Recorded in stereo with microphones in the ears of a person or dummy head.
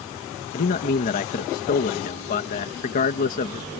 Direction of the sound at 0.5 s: 40° left (ahead or behind).